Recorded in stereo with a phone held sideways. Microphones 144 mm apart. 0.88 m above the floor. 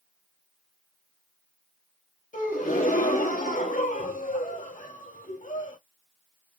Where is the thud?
I don't hear a thud.